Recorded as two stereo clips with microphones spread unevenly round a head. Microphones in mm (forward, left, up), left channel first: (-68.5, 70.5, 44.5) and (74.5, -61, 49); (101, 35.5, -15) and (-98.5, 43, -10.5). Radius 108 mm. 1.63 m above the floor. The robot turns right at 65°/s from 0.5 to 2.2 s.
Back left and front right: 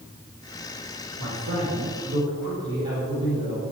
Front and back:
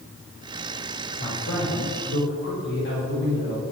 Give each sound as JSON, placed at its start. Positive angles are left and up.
{"t": 1.2, "sound": "a man speaking", "azimuth_deg": -40, "distance_m": 5.0}